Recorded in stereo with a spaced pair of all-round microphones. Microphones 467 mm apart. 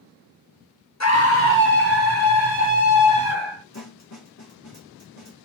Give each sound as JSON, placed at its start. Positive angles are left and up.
{"t": 1.0, "sound": "a scream", "side_deg": 35, "distance_m": 0.7}
{"t": 3.7, "sound": "a snare drum", "side_deg": 35, "distance_m": 1.2}